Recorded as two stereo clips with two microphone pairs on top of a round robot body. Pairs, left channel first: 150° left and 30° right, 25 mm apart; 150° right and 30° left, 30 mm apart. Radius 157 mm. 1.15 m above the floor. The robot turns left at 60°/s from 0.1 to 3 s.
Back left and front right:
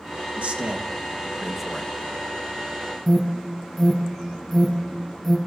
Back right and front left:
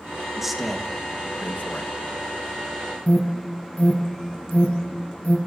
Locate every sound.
0.4 s a man speaking: 50° right, 1.1 m; by 1.9 s 140° right, 1.1 m
3.1 s an alarm: 135° right, 2 m